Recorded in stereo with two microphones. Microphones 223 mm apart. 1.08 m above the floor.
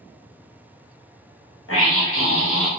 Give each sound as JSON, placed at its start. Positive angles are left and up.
{"t": 1.7, "sound": "a scream", "side_deg": 80, "distance_m": 1.2}